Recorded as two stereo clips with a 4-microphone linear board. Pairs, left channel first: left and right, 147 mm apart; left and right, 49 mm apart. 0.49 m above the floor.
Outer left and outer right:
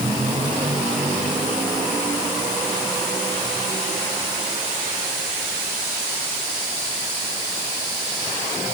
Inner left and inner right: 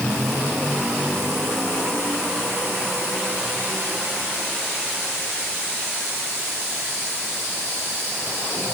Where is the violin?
I don't hear a violin.